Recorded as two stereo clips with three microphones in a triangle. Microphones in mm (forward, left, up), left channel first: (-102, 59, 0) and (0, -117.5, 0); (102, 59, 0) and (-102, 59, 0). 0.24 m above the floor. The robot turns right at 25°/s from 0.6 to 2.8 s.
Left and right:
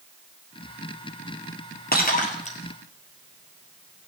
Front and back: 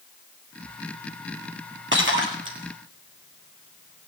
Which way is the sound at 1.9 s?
160° left.